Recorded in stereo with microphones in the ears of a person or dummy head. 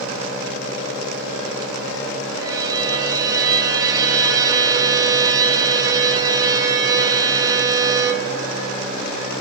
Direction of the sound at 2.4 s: 25° right (ahead or behind).